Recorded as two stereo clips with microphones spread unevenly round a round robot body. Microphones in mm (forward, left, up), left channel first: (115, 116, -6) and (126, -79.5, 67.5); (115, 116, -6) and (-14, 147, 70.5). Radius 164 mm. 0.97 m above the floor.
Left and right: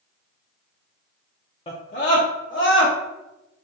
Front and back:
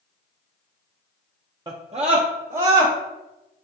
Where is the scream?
75° left, 0.6 m; by 2.9 s 130° left, 1.3 m.